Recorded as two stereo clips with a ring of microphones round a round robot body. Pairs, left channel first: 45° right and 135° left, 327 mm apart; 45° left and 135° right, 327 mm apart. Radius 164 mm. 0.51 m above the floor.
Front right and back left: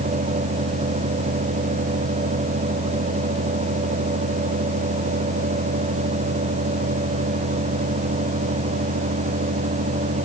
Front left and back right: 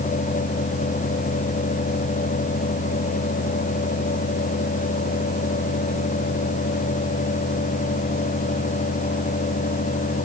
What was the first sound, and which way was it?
Only background noise.